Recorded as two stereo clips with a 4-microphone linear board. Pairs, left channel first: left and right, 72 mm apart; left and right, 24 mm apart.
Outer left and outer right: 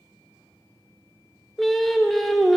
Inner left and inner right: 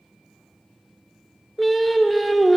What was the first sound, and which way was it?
Singing, 5° left (ahead or behind).